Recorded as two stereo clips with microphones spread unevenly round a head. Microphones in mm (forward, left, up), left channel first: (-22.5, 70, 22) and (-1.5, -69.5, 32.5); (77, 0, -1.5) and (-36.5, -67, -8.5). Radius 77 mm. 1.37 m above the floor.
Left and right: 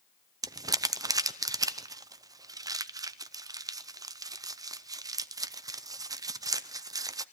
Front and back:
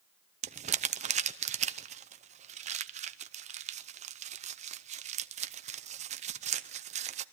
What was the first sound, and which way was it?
Crumpling, 145° right.